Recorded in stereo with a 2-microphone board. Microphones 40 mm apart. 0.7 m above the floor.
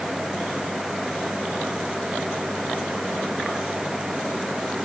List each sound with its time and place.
Only background noise.